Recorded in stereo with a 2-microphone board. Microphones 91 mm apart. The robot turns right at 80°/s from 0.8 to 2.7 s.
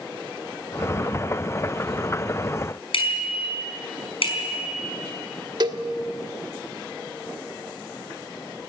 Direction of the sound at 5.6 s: 50° right (ahead or behind).